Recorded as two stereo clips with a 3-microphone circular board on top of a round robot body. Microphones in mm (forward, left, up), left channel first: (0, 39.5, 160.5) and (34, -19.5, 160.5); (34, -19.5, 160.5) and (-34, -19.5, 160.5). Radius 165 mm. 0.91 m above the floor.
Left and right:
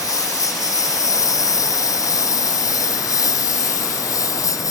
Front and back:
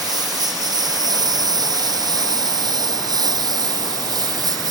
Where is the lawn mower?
155° left.